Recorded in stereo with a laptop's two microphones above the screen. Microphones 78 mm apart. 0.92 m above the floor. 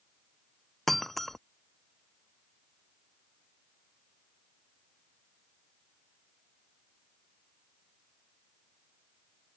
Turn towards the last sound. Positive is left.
turn(degrees=0)  # may be behind; listen again after turning